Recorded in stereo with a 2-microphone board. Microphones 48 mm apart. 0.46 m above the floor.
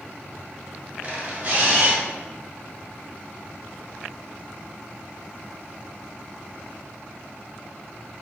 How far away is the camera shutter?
About 1.3 m.